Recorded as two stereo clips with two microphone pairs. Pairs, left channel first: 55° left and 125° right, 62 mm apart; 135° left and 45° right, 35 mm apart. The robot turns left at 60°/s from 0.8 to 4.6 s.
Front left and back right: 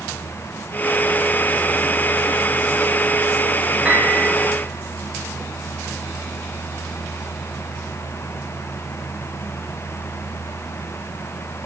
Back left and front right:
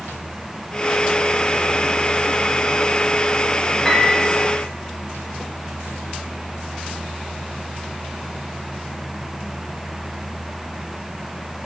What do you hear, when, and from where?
3.9 s a piano: 160° right, 1.2 m; by 4.2 s straight behind, 1.2 m